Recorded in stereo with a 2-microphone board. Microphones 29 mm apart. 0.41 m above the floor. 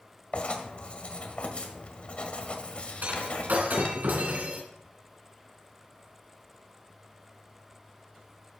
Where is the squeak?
I don't hear a squeak.